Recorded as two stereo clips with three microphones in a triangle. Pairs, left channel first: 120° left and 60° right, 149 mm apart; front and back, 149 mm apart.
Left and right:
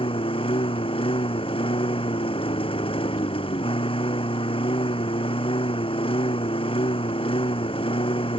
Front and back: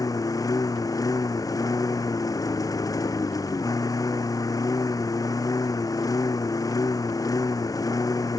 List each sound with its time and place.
0.0 s a lawn mower: 65° left